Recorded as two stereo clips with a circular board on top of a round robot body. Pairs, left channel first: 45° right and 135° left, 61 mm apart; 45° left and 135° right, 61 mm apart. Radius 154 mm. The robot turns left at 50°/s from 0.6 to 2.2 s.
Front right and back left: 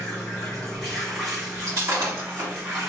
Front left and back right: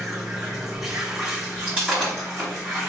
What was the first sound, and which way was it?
Running water, 105° right.